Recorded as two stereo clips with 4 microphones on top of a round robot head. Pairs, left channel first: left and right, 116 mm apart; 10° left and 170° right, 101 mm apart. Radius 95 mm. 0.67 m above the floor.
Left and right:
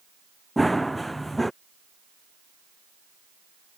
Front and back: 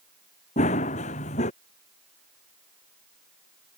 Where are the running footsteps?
Straight ahead.